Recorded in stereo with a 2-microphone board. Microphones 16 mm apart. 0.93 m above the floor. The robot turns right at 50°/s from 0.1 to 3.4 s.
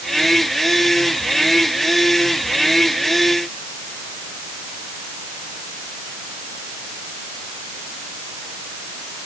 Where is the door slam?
I don't hear a door slam.